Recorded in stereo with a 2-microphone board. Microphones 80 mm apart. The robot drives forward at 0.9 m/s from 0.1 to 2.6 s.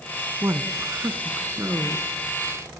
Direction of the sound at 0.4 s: 35° right (ahead or behind).